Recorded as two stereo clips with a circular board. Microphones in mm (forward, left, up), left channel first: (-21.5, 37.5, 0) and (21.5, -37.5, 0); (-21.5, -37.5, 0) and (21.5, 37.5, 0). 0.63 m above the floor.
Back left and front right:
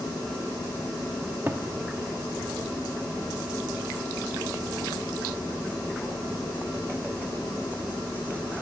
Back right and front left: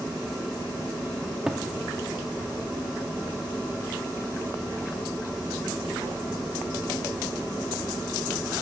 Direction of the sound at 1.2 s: 15° right.